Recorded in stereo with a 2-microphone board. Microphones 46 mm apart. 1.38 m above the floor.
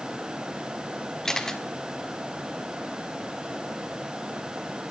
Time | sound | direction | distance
1.2 | a camera shutter | 15° left (ahead or behind) | 1.5 m